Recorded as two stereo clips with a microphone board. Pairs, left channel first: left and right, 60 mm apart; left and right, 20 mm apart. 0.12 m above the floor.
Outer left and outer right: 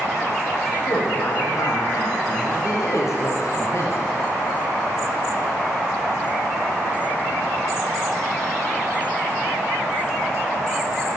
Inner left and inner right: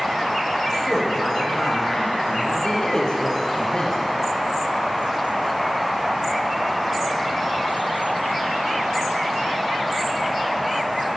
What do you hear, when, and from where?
0.9 s a woman speaking: 70° left (ahead or behind), 5 m; by 4.1 s 45° left (ahead or behind), 1.8 m